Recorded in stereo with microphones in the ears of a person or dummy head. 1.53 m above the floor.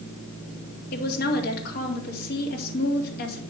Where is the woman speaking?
55° left (ahead or behind), 2.5 m.